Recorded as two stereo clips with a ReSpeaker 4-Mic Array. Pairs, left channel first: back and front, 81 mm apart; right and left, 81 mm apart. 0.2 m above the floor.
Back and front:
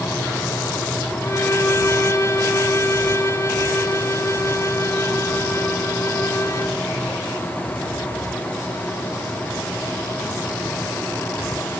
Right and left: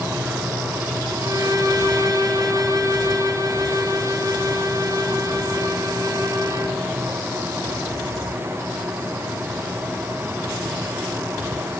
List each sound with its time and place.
1.2 s a violin: 130° left, 2.0 m